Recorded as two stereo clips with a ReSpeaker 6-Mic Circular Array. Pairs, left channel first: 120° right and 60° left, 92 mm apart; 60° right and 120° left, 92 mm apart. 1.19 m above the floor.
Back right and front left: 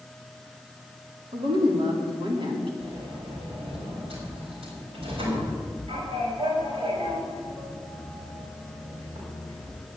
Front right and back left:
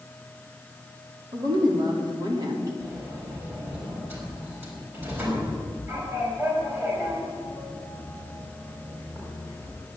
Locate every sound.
1.3 s a woman speaking: 80° left, 3 m
2.8 s a sliding door: 55° left, 4.5 m